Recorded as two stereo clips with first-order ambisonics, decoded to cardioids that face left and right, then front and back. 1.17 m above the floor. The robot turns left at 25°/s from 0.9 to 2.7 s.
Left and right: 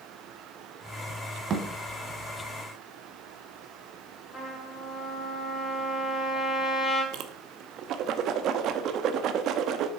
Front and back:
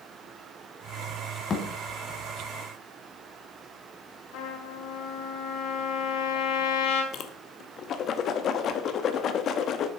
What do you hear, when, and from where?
1.5 s a thud: 55° right, 1.2 m; by 1.6 s 60° right, 1.2 m
4.3 s a trumpet: 15° left, 3 m
7.1 s a whoosh: 50° right, 0.8 m